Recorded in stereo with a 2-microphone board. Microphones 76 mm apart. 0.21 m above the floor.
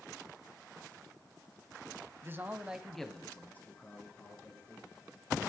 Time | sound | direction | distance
2.2 | a man speaking | 35° right (ahead or behind) | 1.1 m